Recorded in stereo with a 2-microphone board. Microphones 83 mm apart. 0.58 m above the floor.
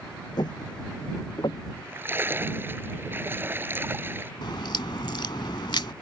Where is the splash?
25° right (ahead or behind).